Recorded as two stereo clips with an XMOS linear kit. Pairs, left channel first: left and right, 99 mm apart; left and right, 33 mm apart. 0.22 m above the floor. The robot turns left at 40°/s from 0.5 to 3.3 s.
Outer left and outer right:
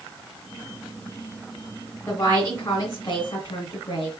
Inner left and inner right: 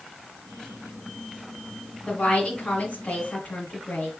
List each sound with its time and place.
2.1 s a woman speaking: 135° left, 1.8 m; by 4.1 s 85° left, 1.8 m